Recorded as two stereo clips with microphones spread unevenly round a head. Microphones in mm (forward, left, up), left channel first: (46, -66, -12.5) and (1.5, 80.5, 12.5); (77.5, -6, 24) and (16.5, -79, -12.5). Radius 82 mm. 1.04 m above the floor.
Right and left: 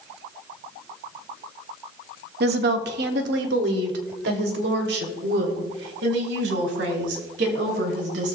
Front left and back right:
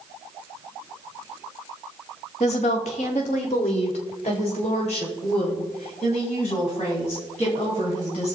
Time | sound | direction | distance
2.4 | a woman speaking | 95° left | 1.4 m